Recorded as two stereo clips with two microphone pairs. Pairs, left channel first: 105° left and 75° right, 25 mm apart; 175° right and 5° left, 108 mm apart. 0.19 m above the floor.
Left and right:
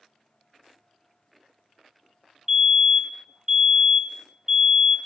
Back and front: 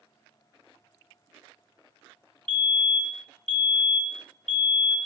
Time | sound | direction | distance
2.5 | a fire alarm | 90° right | 2.5 m